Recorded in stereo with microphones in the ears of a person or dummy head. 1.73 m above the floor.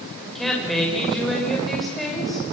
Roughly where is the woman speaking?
Centre.